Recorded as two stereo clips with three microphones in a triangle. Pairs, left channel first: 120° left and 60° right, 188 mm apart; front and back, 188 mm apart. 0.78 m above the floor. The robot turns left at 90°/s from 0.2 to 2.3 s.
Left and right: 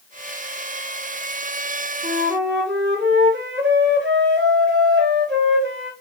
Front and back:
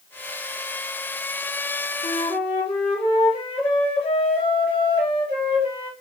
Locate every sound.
2.0 s a flute: 35° right, 3 m; by 5.9 s 60° right, 3 m